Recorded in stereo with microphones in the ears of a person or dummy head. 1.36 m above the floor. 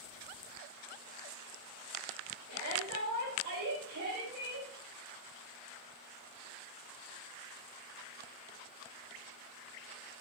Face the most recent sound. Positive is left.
turn(degrees=-90)